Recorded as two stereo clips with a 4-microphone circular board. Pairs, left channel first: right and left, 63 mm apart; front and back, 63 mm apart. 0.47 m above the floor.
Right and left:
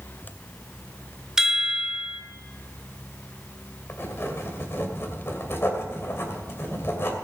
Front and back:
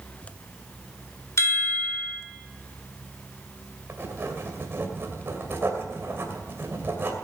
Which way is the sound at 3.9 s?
135° right.